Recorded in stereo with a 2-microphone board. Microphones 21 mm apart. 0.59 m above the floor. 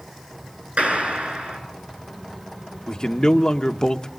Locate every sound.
0.8 s a clap: 85° right, 7.5 m
2.9 s a man speaking: 40° left (ahead or behind), 1.0 m